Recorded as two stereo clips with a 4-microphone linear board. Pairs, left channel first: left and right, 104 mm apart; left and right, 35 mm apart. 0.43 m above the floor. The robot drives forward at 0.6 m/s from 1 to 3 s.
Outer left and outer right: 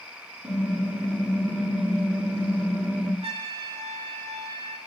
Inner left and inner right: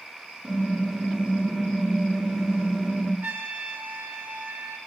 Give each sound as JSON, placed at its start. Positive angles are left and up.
{"t": 0.4, "sound": "typing on a keyboard", "side_deg": -20, "distance_m": 3.5}
{"t": 3.2, "sound": "a trumpet", "side_deg": -75, "distance_m": 1.1}